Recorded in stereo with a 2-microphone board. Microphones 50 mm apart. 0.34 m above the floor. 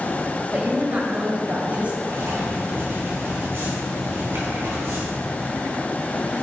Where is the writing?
60° right (ahead or behind), 3 m.